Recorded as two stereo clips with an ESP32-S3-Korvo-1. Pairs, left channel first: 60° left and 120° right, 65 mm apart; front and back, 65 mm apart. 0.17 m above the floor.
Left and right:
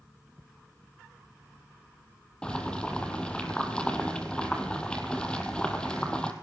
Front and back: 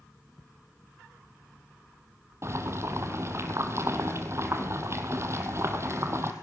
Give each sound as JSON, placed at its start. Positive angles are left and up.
{"t": 2.4, "sound": "boiling", "azimuth_deg": 135, "distance_m": 2.0}